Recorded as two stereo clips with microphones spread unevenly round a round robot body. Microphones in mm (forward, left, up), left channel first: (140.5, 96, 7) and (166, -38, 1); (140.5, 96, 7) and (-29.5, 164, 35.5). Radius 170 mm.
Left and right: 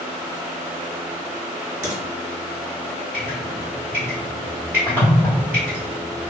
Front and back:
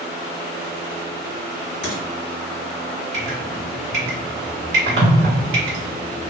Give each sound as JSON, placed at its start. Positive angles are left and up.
{"t": 1.8, "sound": "frying", "azimuth_deg": -80, "distance_m": 1.6}
{"t": 3.1, "sound": "dripping", "azimuth_deg": -165, "distance_m": 0.8}